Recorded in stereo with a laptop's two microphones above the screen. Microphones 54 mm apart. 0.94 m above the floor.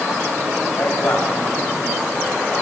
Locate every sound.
0.8 s a man speaking: 50° left (ahead or behind), 5.5 m